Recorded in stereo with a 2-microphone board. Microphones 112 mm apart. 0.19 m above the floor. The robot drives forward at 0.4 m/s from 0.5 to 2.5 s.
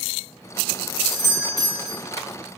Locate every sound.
1.1 s a doorbell: 5° left (ahead or behind), 1.6 m